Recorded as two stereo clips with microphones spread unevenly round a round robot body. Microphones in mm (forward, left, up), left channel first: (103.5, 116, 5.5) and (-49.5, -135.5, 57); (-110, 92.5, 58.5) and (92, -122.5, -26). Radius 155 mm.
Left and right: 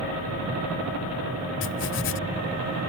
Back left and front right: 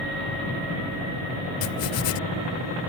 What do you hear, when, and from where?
1.6 s writing: 105° left